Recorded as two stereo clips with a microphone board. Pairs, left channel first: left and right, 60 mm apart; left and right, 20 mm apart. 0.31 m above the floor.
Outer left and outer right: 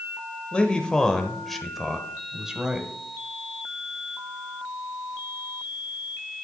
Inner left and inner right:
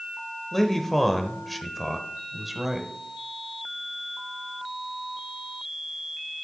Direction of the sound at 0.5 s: 15° left (ahead or behind).